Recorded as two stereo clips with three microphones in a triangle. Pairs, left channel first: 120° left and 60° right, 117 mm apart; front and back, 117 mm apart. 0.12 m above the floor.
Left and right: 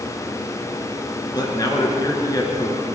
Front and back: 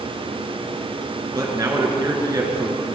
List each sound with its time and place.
1.4 s a man speaking: 145° left, 1.5 m